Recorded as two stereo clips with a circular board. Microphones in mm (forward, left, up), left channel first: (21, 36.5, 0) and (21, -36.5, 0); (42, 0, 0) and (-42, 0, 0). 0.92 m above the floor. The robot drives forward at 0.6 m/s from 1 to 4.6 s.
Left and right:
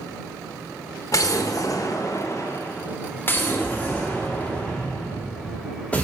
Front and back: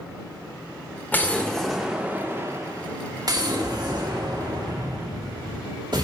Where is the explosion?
60° left, 0.9 m; by 6.0 s 160° left, 1.9 m.